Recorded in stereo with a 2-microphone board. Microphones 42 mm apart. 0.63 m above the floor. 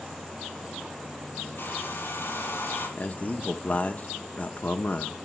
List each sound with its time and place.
1.6 s a hair dryer: 60° left (ahead or behind), 7 m
3.0 s a man speaking: 40° left (ahead or behind), 1.0 m